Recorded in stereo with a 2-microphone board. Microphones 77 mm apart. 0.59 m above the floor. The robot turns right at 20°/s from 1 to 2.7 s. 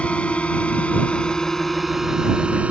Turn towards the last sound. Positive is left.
turn(degrees=-15)  # may be behind; listen again after turning